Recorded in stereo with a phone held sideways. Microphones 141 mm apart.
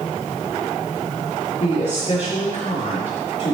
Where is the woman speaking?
60° left (ahead or behind), 4.5 m.